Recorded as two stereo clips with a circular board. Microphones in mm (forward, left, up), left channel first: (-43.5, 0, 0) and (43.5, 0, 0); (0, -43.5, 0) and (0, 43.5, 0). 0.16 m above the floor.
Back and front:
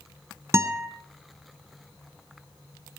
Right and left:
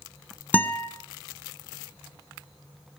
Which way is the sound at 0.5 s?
30° right.